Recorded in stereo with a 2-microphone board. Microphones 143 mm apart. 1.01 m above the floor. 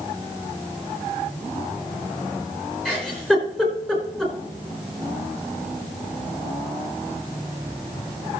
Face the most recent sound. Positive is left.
turn(degrees=5)  # may be behind; listen again after turning